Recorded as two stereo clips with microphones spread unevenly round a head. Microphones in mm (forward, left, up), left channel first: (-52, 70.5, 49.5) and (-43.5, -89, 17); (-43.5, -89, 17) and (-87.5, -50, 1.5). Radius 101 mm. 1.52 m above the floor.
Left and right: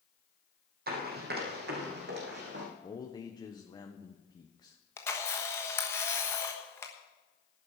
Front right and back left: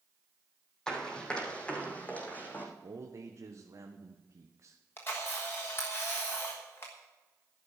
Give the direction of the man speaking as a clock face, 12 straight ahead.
7 o'clock.